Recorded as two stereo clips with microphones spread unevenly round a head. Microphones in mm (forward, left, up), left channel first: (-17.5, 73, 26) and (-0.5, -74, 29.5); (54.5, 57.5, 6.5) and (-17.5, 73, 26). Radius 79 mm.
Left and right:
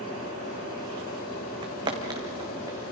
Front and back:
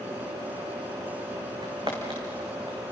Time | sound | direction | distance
1.6 | footsteps | 140° right | 2.5 m